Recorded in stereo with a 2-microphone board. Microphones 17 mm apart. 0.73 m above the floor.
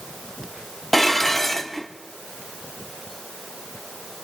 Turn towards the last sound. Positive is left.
turn(degrees=15)  # may be behind; listen again after turning